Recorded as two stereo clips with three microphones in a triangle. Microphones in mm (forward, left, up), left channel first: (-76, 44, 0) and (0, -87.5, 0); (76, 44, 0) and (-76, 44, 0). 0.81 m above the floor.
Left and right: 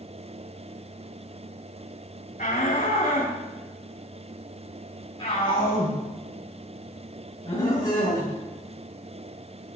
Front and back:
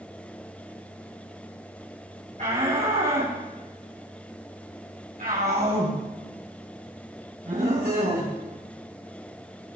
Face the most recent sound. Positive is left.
turn(degrees=-175)